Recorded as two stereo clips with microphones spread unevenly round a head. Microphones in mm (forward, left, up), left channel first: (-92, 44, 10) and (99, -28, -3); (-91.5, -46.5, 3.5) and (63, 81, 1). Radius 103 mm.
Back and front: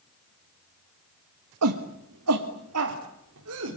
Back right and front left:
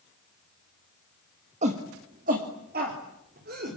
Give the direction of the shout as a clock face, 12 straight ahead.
1 o'clock.